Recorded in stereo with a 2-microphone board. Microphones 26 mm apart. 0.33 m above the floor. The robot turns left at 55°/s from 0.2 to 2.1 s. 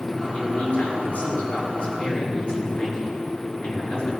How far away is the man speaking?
About 4 m.